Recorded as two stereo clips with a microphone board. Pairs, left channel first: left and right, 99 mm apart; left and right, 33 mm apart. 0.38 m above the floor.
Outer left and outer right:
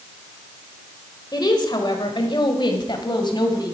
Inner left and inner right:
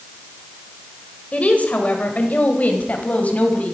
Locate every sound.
1.3 s a woman speaking: 45° left (ahead or behind), 1.5 m